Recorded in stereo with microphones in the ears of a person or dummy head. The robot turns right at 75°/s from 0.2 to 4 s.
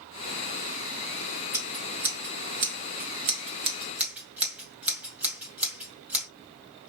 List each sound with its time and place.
1.5 s scissors: 15° left (ahead or behind), 1.8 m; by 6.3 s 10° right (ahead or behind), 1.8 m